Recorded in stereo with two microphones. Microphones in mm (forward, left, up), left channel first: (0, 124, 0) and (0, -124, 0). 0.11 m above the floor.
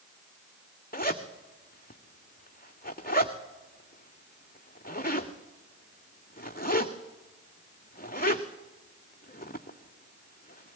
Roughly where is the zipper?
Left.